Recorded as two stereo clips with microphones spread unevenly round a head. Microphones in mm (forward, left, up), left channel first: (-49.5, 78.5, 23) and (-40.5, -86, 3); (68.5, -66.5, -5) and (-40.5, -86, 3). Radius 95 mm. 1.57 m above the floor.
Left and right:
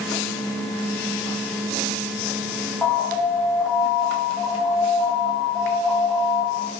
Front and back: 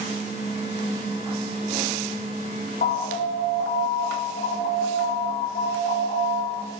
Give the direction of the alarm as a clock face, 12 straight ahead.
12 o'clock.